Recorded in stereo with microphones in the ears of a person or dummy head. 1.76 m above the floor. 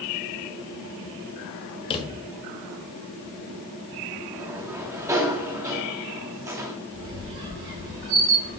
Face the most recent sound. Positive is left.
turn(degrees=-65)  # may be behind; listen again after turning